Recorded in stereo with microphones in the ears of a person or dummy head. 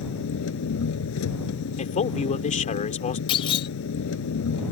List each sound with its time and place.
0.0 s an engine running: 70° left (ahead or behind)
1.8 s a man speaking: 35° left (ahead or behind)
3.3 s a clunk: 30° left (ahead or behind)